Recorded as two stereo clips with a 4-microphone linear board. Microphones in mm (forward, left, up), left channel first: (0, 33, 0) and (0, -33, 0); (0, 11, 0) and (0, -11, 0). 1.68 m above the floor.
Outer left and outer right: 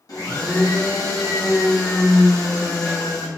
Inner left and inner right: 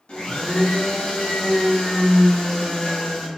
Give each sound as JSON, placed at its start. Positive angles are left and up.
{"t": 0.1, "sound": "a blender", "side_deg": 65, "distance_m": 0.9}